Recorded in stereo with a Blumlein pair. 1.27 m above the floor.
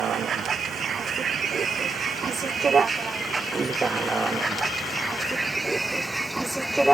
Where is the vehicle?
25° right; by 7.0 s 5° right.